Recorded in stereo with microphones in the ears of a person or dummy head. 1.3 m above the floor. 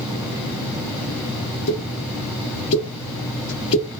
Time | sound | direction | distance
1.7 | a pop | 65° left (ahead or behind) | 1.4 m